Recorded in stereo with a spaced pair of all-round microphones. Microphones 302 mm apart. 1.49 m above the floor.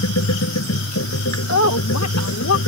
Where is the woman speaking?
70° left (ahead or behind).